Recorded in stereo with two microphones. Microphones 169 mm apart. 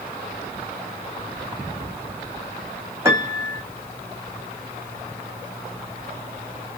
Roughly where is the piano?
Centre.